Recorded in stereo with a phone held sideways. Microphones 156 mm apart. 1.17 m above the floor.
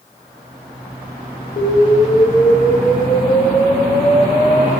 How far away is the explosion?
About 1.7 m.